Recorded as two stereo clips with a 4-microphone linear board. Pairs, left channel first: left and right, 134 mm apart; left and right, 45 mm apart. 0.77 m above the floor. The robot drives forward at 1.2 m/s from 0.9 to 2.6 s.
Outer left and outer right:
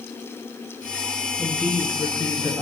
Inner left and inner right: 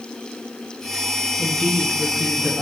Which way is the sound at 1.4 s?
15° left (ahead or behind).